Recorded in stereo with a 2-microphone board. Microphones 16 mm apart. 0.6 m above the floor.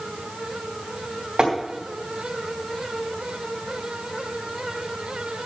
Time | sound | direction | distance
1.4 | tapping | 55° right (ahead or behind) | 3 m